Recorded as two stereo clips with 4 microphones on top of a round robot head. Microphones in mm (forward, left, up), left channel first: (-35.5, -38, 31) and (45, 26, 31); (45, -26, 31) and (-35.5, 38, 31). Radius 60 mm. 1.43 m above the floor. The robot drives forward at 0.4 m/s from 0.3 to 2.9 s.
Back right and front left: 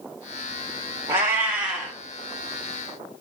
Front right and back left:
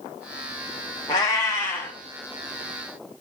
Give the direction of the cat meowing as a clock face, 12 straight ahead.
12 o'clock.